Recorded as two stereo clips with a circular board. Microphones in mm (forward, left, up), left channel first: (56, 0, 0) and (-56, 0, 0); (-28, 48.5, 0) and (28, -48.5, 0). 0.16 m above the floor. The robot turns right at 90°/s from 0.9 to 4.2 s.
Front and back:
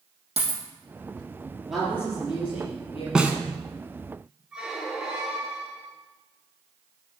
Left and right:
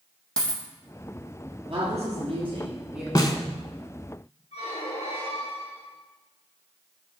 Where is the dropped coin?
160° right, 2.5 m.